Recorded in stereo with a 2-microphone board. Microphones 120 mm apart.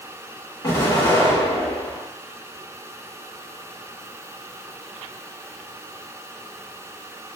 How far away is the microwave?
I don't hear a microwave.